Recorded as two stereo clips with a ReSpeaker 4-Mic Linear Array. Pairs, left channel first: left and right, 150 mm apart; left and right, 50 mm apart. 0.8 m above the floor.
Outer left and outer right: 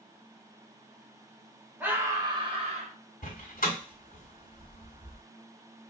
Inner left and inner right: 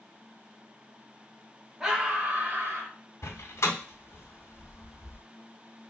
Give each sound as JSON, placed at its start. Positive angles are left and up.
{"t": 1.8, "sound": "a scream", "side_deg": -10, "distance_m": 1.0}
{"t": 3.2, "sound": "a door slam", "side_deg": 75, "distance_m": 1.3}